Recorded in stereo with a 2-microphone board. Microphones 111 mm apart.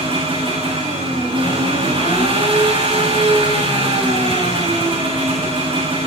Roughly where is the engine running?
Right.